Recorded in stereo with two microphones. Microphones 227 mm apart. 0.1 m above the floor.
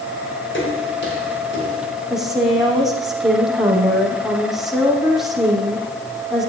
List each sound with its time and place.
0.5 s footsteps: 55° left (ahead or behind), 9.5 m; by 2.0 s 45° left (ahead or behind), 9 m
2.1 s a woman speaking: centre (ahead or behind), 5.5 m